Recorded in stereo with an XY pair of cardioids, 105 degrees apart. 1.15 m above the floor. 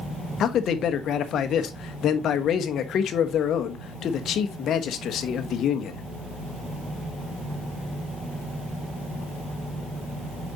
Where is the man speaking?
65° left, 1.1 m.